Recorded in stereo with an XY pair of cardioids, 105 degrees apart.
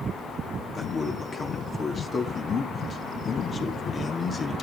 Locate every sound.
0.8 s a man speaking: 35° left, 2.5 m